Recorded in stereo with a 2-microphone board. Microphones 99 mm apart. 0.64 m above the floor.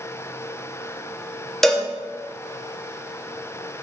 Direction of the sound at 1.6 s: 5° left (ahead or behind).